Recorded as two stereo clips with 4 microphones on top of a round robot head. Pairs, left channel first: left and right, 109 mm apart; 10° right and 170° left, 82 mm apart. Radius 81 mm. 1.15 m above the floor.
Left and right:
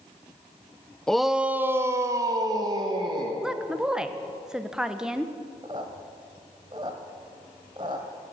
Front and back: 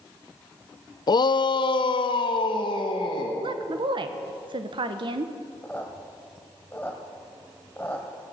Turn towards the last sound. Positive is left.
turn(degrees=-75)